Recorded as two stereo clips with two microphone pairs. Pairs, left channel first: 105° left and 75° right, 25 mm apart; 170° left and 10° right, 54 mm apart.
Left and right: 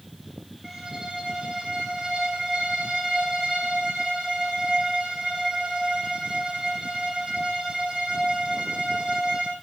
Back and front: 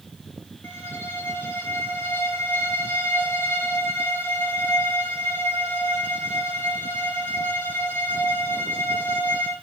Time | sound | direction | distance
0.6 | a violin | 140° right | 5 m